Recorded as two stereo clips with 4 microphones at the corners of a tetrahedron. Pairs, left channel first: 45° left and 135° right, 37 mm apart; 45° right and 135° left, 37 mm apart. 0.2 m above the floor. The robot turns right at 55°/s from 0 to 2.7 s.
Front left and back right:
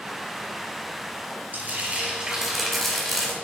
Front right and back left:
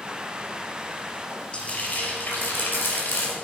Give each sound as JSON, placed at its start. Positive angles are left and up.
{"t": 1.5, "sound": "frying", "azimuth_deg": -105, "distance_m": 3.0}